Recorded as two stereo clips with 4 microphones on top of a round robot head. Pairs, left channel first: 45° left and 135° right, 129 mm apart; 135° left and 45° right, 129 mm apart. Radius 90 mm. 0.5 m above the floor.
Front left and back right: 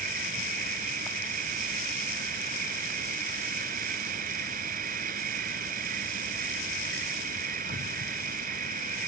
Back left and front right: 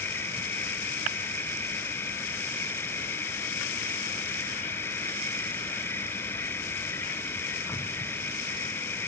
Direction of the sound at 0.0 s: 150° right.